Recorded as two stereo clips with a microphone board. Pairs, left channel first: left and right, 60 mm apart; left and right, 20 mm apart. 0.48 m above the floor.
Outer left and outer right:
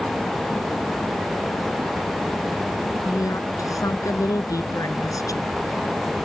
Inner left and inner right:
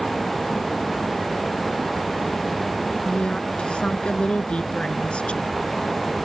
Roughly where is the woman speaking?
Left.